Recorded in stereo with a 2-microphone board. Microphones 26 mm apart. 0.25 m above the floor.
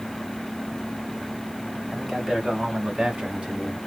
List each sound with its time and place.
1.9 s a man speaking: 5° left (ahead or behind), 1.2 m; by 3.8 s 40° right (ahead or behind), 1.5 m